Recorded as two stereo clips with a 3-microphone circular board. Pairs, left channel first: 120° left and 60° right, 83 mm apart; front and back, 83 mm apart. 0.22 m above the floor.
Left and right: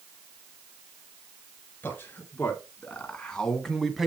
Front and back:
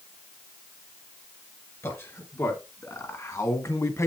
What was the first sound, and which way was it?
A man speaking, 55° left.